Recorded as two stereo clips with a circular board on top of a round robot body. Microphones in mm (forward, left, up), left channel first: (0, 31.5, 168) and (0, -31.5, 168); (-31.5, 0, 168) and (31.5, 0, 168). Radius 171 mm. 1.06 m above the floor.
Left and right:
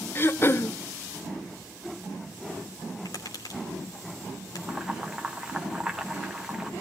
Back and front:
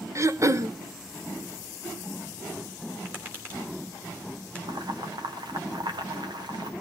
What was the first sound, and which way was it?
Throat clearing, 40° left.